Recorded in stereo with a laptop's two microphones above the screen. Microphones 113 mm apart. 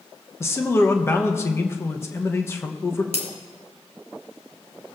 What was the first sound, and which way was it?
A man speaking, 25° left (ahead or behind).